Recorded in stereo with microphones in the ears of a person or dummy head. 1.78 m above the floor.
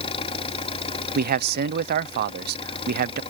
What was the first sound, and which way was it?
An engine running, 25° left (ahead or behind).